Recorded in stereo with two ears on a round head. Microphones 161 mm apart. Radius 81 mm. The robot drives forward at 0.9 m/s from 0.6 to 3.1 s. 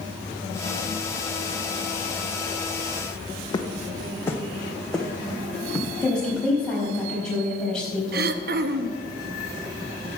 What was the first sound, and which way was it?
Footsteps, 25° left (ahead or behind).